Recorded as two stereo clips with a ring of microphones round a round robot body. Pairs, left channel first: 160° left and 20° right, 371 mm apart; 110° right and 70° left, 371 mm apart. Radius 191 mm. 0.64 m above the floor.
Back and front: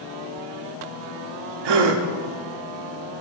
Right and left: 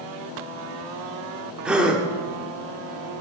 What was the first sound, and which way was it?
A gasp, 20° right.